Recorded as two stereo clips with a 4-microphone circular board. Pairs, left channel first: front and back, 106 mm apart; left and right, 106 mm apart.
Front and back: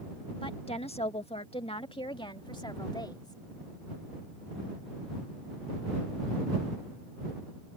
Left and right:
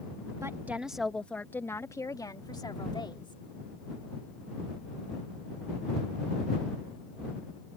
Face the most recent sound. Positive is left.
turn(degrees=50)